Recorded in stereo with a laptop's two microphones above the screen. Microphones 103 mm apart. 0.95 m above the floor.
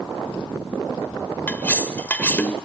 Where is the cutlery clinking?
15° left (ahead or behind), 1.8 m.